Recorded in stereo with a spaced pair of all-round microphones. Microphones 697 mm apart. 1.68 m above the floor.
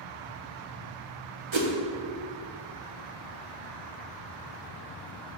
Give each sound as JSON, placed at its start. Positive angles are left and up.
{"t": 1.5, "sound": "a whoosh", "side_deg": -45, "distance_m": 1.0}